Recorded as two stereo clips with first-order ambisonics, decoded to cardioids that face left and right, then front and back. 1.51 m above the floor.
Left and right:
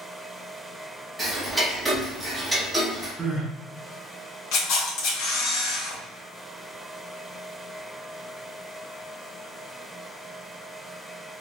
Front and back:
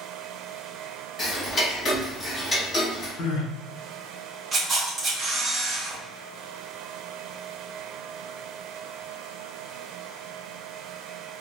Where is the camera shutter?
100° left, 1.4 m.